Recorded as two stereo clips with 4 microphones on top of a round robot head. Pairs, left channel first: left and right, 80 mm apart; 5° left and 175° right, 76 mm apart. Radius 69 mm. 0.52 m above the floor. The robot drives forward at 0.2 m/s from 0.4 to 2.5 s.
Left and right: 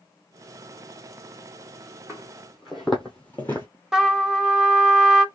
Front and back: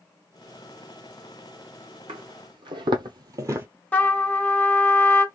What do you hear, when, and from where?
2.1 s footsteps: straight behind, 1.2 m; by 3.7 s 150° left, 0.5 m
3.9 s a trumpet: 20° right, 0.9 m